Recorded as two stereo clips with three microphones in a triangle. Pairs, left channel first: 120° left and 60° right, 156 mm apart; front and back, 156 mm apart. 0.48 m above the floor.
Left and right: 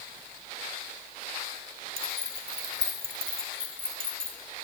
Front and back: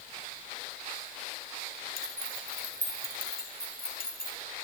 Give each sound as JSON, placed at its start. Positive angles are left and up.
{"t": 2.0, "sound": "keys jangling", "azimuth_deg": -10, "distance_m": 2.5}